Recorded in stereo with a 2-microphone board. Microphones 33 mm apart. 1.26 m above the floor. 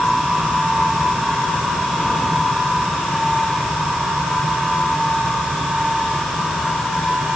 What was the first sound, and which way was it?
Only background noise.